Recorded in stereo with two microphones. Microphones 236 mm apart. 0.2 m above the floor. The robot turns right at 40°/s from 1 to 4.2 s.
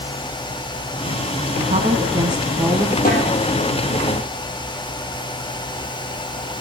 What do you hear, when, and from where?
1.6 s a woman speaking: 60° right, 1.2 m; by 3.0 s 5° right, 1.2 m
3.0 s a snare drum: 35° left (ahead or behind), 5 m; by 3.3 s 45° left (ahead or behind), 5 m